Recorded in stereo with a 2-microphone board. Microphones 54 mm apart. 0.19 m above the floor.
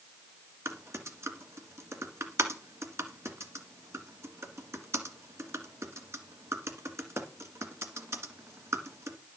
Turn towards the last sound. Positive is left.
turn(degrees=-60)  # may be behind; listen again after turning